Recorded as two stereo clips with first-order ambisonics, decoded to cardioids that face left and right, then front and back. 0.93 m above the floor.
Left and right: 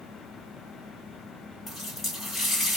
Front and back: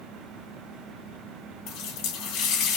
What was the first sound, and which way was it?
A running tap, 10° left.